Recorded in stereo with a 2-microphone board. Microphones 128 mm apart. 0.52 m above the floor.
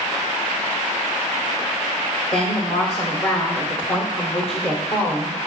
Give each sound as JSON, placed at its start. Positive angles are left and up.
{"t": 2.3, "sound": "a woman speaking", "side_deg": 45, "distance_m": 1.4}